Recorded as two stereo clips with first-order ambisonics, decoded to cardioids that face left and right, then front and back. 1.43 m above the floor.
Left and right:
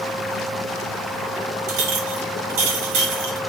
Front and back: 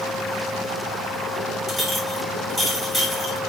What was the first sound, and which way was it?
A clink, 75° right.